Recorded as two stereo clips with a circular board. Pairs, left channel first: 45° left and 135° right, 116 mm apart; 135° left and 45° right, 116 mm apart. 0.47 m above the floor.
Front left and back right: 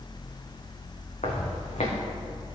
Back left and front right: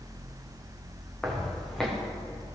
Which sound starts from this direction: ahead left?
Footsteps, at 1.2 s.